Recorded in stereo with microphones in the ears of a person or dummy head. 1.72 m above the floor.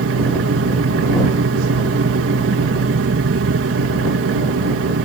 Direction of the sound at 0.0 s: 65° right (ahead or behind).